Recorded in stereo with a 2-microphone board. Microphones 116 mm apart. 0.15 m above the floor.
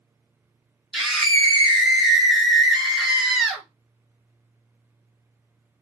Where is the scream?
Centre (ahead or behind), 2.0 m.